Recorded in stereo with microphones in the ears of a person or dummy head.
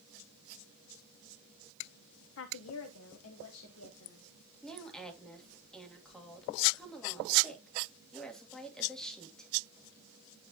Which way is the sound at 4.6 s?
5° left (ahead or behind).